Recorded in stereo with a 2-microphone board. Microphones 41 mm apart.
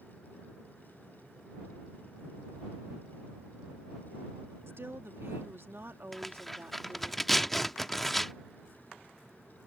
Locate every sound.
4.7 s a woman speaking: 75° right (ahead or behind); by 7.1 s 55° right (ahead or behind)
6.1 s tearing paper: 5° left (ahead or behind)